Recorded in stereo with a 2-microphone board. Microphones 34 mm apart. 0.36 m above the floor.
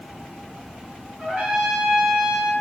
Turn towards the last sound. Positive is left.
turn(degrees=-20)  # may be behind; listen again after turning